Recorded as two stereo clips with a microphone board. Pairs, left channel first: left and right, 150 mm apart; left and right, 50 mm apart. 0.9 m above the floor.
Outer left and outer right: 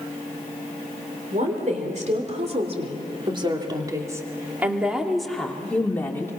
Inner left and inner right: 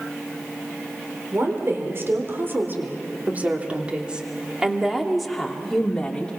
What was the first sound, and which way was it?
A woman speaking, 55° right (ahead or behind).